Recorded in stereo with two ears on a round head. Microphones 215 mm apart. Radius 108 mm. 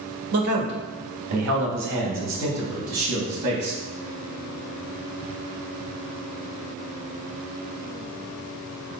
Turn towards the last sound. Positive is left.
turn(degrees=-80)